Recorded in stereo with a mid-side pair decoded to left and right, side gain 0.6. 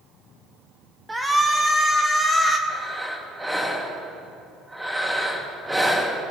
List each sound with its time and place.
1.1 s a shout: 10° right, 1.6 m
2.7 s breathing: 5° right, 2 m